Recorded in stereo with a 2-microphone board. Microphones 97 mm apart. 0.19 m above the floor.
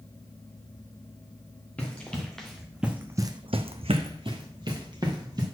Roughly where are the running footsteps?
Centre.